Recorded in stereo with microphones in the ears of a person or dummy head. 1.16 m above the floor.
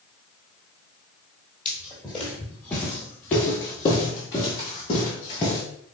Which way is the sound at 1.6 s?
5° left (ahead or behind).